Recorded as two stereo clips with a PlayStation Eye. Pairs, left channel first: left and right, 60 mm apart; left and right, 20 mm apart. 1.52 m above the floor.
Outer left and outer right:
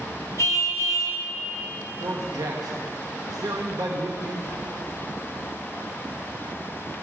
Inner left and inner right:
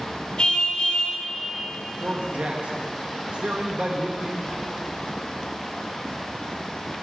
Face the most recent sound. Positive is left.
turn(degrees=-80)